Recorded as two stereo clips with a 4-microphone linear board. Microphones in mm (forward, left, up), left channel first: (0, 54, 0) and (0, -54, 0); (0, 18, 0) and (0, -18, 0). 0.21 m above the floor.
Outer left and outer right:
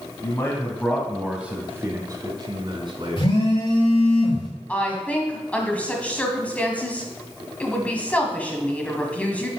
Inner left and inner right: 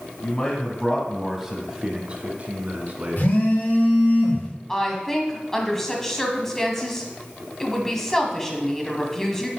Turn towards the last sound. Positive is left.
turn(degrees=15)  # may be behind; listen again after turning